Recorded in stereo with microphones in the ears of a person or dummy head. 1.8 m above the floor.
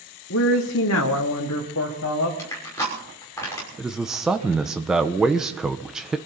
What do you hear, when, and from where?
0.3 s a woman speaking: 60° left (ahead or behind), 1.3 m; by 2.3 s 65° left (ahead or behind), 2.5 m
2.4 s crushing: 15° left (ahead or behind), 6 m
3.8 s a man speaking: 5° right (ahead or behind), 1.0 m